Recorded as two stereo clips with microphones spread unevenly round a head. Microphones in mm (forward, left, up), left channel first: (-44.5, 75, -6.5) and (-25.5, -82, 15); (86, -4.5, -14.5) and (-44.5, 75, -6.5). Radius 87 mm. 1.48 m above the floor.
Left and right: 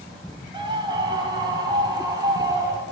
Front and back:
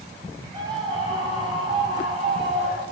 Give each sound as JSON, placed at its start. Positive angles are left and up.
{"t": 0.5, "sound": "a scream", "azimuth_deg": -145, "distance_m": 9.5}